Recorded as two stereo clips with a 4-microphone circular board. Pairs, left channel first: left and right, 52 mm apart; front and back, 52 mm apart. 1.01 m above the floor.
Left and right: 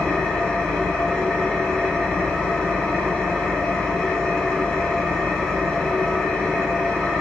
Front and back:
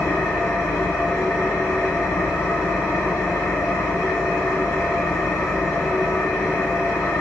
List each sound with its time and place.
0.0 s an engine running: 10° left, 1.0 m